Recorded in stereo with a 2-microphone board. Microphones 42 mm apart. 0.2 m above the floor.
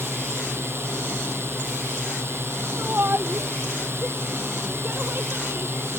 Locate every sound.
0.0 s a drone: 75° right (ahead or behind)
2.8 s a shout: 60° right (ahead or behind)